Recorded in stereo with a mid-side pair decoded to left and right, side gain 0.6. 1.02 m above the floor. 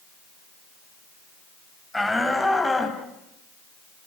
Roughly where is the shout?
Ahead.